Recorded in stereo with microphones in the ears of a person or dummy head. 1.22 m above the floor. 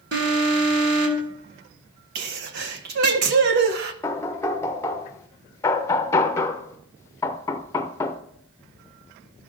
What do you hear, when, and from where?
0.1 s an alarm: 60° right (ahead or behind), 2.0 m
2.1 s a sneeze: 50° right (ahead or behind), 0.8 m
4.0 s knocking: 15° left (ahead or behind), 0.6 m